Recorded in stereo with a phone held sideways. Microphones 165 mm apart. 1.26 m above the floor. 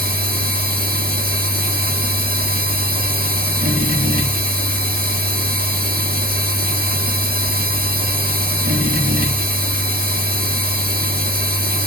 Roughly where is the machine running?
Right.